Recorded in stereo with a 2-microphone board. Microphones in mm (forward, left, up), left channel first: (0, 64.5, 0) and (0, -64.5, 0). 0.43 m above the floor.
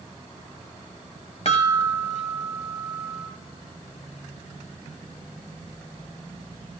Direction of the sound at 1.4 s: 55° left (ahead or behind).